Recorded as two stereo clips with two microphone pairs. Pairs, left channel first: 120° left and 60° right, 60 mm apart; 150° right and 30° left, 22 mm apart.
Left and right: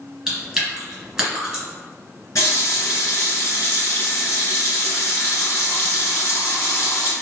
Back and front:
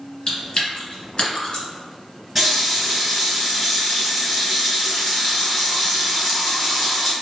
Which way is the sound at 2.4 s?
110° left.